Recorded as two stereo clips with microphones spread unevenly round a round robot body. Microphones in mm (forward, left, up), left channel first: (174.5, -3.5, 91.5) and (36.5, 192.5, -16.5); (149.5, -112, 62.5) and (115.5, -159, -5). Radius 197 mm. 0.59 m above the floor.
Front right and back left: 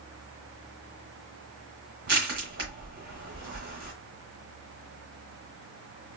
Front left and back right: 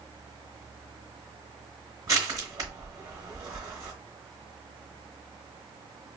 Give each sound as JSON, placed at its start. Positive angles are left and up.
{"t": 2.1, "sound": "crushing", "azimuth_deg": -175, "distance_m": 0.9}